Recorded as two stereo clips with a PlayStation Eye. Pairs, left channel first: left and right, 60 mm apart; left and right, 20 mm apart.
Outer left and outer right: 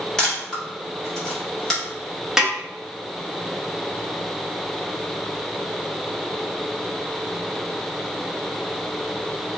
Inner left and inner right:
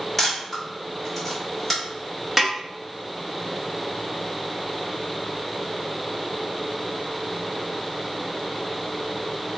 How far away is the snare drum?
About 0.9 m.